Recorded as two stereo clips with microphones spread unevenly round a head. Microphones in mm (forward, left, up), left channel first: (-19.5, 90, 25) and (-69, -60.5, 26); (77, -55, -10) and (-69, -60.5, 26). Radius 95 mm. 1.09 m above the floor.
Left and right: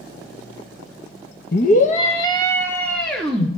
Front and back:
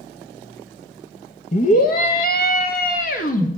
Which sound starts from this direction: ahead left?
A scream, at 1.5 s.